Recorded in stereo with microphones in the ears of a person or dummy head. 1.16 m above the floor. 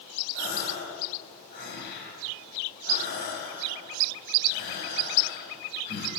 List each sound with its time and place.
0.3 s a gasp: 60° left (ahead or behind), 6 m